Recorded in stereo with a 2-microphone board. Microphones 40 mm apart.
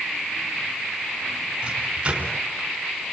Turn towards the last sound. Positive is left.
turn(degrees=-25)  # may be behind; listen again after turning